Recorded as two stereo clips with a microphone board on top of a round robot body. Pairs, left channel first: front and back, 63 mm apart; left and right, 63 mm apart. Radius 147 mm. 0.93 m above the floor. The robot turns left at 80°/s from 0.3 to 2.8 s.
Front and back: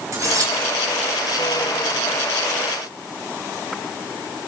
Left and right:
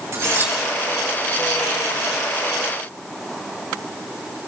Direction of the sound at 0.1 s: 140° right.